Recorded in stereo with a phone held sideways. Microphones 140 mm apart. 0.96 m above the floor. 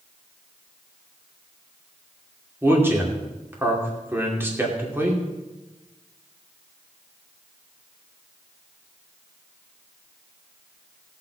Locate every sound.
2.6 s a man speaking: 15° right (ahead or behind), 2.5 m